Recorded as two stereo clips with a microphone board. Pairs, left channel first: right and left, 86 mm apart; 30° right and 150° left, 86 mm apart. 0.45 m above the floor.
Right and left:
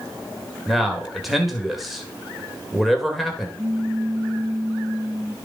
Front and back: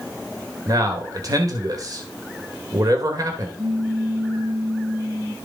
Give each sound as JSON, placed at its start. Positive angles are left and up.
{"t": 0.7, "sound": "a man speaking", "azimuth_deg": 180, "distance_m": 1.8}
{"t": 3.6, "sound": "a pop", "azimuth_deg": 120, "distance_m": 2.0}